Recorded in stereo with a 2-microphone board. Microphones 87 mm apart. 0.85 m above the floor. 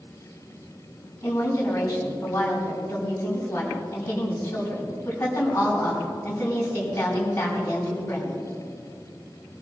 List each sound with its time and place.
1.2 s a woman speaking: 25° left (ahead or behind), 6 m